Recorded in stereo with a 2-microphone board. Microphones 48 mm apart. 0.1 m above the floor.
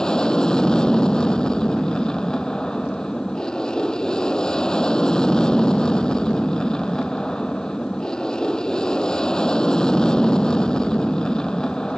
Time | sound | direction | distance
0.0 | an aircraft | 15° left (ahead or behind) | ?